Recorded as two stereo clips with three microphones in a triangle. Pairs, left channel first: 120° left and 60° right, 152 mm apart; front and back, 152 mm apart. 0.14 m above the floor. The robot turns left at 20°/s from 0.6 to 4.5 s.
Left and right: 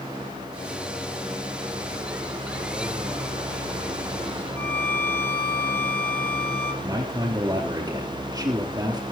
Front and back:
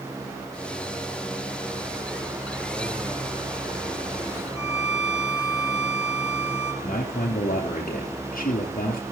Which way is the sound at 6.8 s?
Straight ahead.